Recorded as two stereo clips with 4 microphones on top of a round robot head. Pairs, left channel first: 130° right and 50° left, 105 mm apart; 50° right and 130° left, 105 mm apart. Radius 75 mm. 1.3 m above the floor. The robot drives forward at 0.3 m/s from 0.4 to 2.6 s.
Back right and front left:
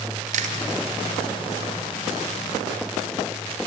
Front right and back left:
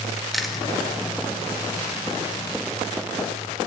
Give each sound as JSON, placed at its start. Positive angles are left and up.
{"t": 0.3, "sound": "chewing", "azimuth_deg": 40, "distance_m": 2.0}